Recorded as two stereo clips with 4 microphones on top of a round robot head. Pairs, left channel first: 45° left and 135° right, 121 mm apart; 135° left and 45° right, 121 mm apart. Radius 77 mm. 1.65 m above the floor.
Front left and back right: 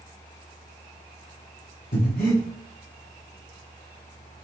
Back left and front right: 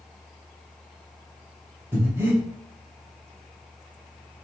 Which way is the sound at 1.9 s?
30° left.